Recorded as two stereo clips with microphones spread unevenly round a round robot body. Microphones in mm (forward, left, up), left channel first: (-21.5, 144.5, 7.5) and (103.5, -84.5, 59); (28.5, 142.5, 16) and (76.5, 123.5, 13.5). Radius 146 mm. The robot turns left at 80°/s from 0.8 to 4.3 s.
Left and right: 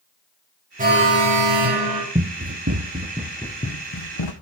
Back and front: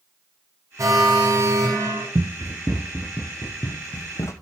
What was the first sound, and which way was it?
An alarm, straight ahead.